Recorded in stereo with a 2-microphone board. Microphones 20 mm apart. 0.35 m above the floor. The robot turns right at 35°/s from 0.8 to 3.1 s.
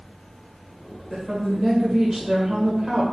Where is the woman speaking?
20° right (ahead or behind), 1.3 m.